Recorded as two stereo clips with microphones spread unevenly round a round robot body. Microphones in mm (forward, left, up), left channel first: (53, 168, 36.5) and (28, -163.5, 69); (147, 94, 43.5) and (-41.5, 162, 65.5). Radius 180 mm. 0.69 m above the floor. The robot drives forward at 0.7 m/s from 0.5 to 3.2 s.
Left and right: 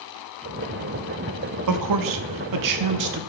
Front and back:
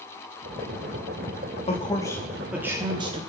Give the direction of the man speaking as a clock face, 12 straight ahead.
2 o'clock.